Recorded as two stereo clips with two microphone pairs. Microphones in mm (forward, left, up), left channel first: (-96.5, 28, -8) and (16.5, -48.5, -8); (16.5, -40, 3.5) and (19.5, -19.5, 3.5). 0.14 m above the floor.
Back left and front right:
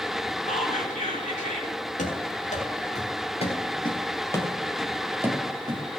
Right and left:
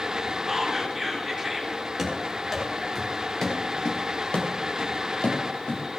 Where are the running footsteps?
170° left, 4.5 m; by 5.8 s 90° right, 2.5 m.